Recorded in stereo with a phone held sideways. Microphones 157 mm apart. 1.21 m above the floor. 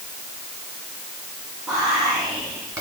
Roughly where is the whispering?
Centre.